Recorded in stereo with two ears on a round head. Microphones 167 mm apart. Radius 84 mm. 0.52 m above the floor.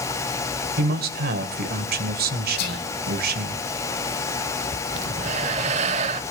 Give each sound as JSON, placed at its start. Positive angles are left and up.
{"t": 0.8, "sound": "a man speaking", "side_deg": -55, "distance_m": 2.5}
{"t": 2.6, "sound": "whispering", "side_deg": 55, "distance_m": 8.0}
{"t": 4.9, "sound": "breathing", "side_deg": -35, "distance_m": 1.0}